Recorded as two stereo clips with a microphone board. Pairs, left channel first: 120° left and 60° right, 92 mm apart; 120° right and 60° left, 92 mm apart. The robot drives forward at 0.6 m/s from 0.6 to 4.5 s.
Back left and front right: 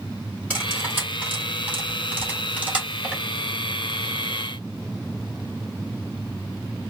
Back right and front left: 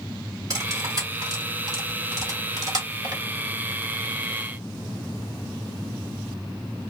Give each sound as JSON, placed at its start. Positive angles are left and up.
{"t": 0.5, "sound": "cutlery clinking", "azimuth_deg": 10, "distance_m": 3.5}